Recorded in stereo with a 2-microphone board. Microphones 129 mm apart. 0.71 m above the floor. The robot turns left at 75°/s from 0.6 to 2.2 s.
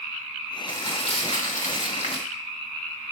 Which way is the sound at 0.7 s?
160° left.